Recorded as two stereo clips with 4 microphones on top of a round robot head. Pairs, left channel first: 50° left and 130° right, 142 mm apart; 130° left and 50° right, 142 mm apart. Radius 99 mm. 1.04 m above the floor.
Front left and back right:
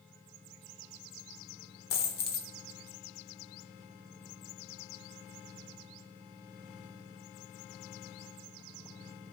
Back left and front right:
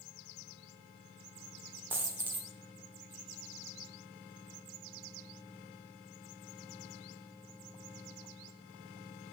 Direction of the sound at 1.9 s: 30° left.